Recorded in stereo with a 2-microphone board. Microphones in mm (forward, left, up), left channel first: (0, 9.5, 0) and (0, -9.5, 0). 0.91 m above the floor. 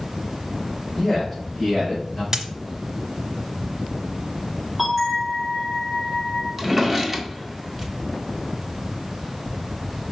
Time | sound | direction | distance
1.0 | a man speaking | 30° left (ahead or behind) | 4 m
2.3 | a dropped coin | 45° right (ahead or behind) | 0.9 m
4.8 | a bell | centre (ahead or behind) | 4.5 m
6.6 | a drawer | 10° right (ahead or behind) | 1.2 m